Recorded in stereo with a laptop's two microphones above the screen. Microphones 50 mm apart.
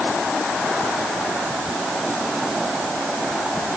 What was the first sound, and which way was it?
Only background noise.